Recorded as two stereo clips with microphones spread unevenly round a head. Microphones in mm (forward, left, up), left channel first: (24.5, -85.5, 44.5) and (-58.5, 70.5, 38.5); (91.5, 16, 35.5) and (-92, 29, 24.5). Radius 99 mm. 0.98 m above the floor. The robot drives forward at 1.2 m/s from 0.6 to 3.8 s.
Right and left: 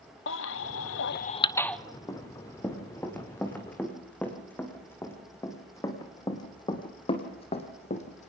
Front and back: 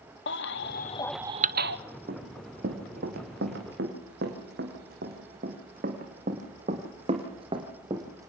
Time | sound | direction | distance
0.3 | a baby crying | 40° right | 0.8 m
2.1 | running footsteps | 135° right | 3.5 m